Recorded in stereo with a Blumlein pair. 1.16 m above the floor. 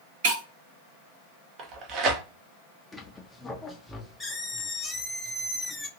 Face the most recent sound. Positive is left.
turn(degrees=10)